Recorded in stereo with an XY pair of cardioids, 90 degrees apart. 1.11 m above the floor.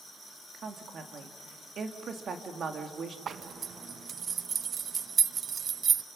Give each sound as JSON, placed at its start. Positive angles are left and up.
{"t": 0.5, "sound": "a woman speaking", "azimuth_deg": -60, "distance_m": 1.9}
{"t": 3.3, "sound": "a zipper", "azimuth_deg": -55, "distance_m": 0.5}